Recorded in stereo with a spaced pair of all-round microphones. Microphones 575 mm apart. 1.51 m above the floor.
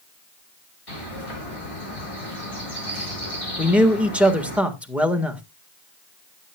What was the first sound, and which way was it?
A bird, 70° left (ahead or behind).